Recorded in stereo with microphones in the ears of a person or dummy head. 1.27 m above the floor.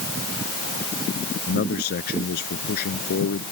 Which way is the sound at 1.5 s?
60° left (ahead or behind).